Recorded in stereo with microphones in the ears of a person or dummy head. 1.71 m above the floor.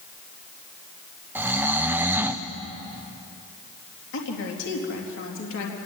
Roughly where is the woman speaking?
Left.